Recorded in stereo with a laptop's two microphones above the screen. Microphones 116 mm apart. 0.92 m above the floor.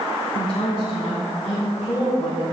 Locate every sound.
0.3 s a woman speaking: 30° left (ahead or behind), 2.5 m